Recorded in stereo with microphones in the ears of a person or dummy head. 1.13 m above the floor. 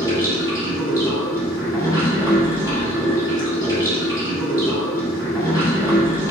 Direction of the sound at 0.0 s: 15° left (ahead or behind).